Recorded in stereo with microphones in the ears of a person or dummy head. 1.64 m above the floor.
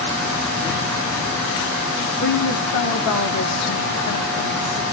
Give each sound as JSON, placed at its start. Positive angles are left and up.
{"t": 2.2, "sound": "a woman speaking", "side_deg": 50, "distance_m": 1.1}